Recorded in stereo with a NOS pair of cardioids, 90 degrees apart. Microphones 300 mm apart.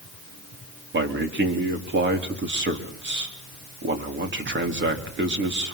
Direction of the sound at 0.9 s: 35° right.